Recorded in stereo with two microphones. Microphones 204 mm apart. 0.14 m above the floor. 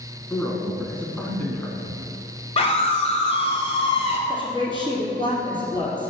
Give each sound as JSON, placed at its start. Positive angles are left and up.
{"t": 0.3, "sound": "a man speaking", "side_deg": 5, "distance_m": 1.1}
{"t": 2.6, "sound": "a scream", "side_deg": 30, "distance_m": 1.2}
{"t": 4.3, "sound": "a woman speaking", "side_deg": -25, "distance_m": 2.5}